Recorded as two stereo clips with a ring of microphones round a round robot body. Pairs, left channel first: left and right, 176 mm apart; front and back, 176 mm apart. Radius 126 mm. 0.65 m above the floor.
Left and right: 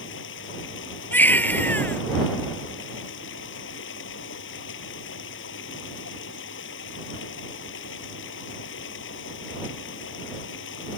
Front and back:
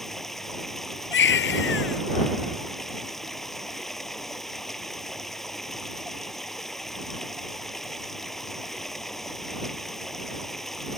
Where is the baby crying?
10° left.